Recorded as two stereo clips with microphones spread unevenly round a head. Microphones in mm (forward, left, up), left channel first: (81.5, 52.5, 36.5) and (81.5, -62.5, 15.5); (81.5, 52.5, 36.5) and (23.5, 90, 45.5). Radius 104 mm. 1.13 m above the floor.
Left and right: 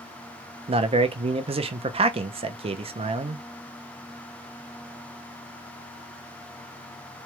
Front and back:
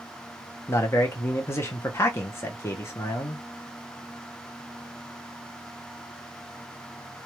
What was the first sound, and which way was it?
A man speaking, 80° right.